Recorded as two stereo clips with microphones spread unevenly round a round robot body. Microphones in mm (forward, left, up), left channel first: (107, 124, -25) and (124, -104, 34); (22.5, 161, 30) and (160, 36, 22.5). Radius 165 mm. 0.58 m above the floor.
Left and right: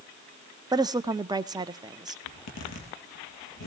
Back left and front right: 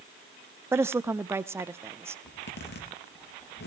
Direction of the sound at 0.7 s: Straight ahead.